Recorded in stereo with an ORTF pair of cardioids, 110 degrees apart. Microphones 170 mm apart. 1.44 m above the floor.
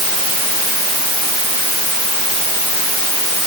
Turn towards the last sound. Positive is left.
No sound to turn to.